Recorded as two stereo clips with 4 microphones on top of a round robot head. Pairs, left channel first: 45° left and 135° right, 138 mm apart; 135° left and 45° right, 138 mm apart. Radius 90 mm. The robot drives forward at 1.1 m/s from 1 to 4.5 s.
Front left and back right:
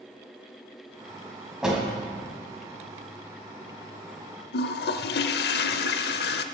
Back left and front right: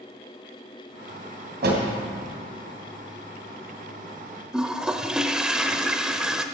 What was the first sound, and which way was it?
A door slam, 50° right.